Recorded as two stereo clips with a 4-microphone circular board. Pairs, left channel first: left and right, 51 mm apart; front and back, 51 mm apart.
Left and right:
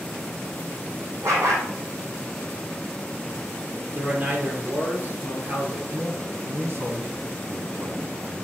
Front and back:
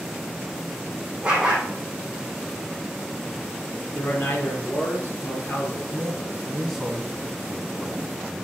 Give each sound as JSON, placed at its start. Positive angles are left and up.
{"t": 1.2, "sound": "a dog barking", "azimuth_deg": -105, "distance_m": 3.0}
{"t": 3.9, "sound": "a man speaking", "azimuth_deg": -40, "distance_m": 4.0}
{"t": 5.9, "sound": "a man speaking", "azimuth_deg": -90, "distance_m": 1.7}